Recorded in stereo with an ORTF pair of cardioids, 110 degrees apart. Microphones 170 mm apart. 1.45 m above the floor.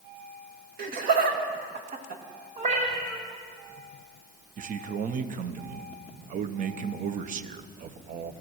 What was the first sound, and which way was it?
Laughter, 60° right.